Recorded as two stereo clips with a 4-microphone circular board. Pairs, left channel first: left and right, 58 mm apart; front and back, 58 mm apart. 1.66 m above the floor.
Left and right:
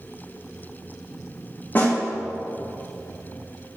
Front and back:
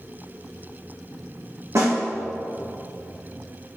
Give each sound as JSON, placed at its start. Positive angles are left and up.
{"t": 1.8, "sound": "a snare drum", "azimuth_deg": 150, "distance_m": 2.5}